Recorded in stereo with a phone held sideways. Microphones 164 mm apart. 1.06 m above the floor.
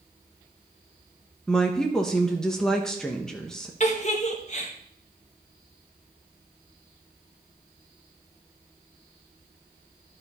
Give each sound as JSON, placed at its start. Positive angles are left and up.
{"t": 1.5, "sound": "a woman speaking", "side_deg": 5, "distance_m": 1.0}
{"t": 3.8, "sound": "a giggle", "side_deg": 45, "distance_m": 1.4}